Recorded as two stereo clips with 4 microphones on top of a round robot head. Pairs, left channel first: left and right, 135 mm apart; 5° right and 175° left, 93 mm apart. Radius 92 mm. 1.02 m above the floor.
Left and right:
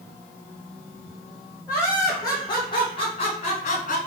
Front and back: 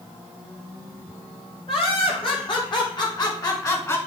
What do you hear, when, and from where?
1.7 s laughter: 15° left, 4 m; by 4.0 s 55° left, 2.5 m